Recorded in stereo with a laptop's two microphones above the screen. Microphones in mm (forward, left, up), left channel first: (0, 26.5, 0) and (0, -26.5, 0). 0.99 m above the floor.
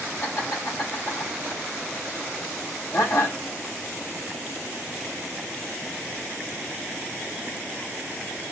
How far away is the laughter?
About 4 m.